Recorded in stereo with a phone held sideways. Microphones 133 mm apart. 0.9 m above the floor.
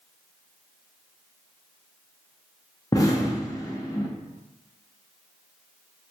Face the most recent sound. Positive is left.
turn(degrees=25)  # may be behind; listen again after turning